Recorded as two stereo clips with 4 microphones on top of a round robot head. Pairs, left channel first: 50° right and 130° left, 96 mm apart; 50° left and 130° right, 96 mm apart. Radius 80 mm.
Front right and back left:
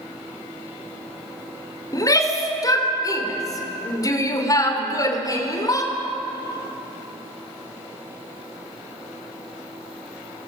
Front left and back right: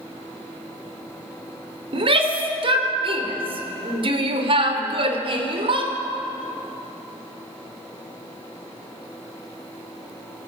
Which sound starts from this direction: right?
A shout, at 1.9 s.